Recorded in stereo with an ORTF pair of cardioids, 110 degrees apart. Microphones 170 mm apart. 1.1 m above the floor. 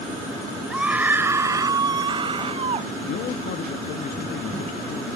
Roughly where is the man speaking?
Ahead left.